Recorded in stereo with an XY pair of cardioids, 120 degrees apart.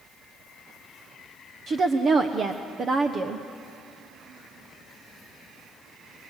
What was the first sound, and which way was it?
A woman speaking, 40° right.